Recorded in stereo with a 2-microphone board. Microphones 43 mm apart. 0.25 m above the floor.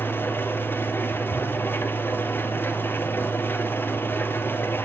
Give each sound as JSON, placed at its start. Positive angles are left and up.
{"t": 0.0, "sound": "an engine running", "side_deg": 60, "distance_m": 1.3}